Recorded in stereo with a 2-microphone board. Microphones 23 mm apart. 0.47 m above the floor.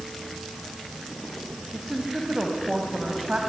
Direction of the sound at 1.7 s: 35° right (ahead or behind).